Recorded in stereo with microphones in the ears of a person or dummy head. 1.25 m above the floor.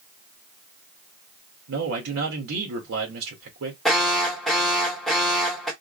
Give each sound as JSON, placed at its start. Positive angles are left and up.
{"t": 1.7, "sound": "a man speaking", "side_deg": -65, "distance_m": 1.6}
{"t": 3.9, "sound": "an alarm", "side_deg": 5, "distance_m": 1.0}